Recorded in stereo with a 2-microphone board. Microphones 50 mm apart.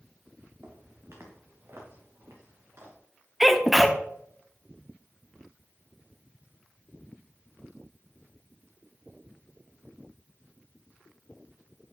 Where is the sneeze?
Centre (ahead or behind), 0.7 m.